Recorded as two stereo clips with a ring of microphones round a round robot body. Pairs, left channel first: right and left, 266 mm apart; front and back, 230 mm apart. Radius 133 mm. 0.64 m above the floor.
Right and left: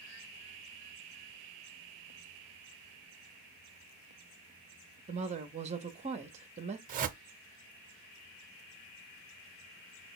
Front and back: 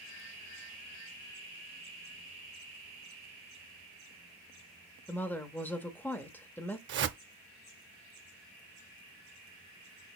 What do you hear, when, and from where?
5.1 s a woman speaking: 70° left, 0.7 m
6.9 s a whoosh: 145° left, 0.5 m